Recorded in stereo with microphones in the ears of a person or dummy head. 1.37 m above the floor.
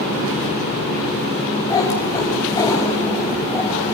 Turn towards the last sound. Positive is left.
turn(degrees=20)  # may be behind; listen again after turning